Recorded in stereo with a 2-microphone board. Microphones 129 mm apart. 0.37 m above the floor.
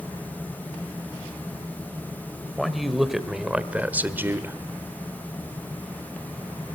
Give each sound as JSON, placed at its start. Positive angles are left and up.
{"t": 2.6, "sound": "a man speaking", "side_deg": 0, "distance_m": 1.6}